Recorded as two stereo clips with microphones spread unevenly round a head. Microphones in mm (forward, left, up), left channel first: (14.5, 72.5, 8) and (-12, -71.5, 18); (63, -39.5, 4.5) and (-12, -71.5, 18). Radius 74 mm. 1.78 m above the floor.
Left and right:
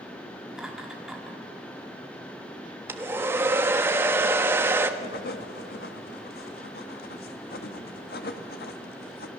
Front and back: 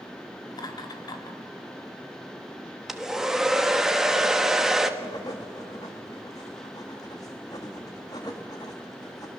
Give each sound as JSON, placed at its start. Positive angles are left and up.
{"t": 0.5, "sound": "laughter", "azimuth_deg": -15, "distance_m": 3.5}
{"t": 2.9, "sound": "a hair dryer", "azimuth_deg": -120, "distance_m": 1.2}
{"t": 5.0, "sound": "writing", "azimuth_deg": 85, "distance_m": 1.7}